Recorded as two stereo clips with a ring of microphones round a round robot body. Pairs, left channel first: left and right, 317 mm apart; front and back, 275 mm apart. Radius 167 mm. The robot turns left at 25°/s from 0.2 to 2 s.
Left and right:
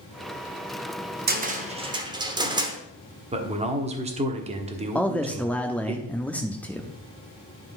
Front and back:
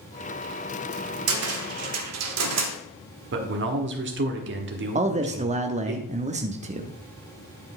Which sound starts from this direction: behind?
A man speaking, at 5.0 s.